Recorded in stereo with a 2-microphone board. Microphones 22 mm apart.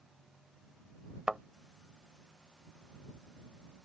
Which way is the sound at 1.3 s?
35° right (ahead or behind).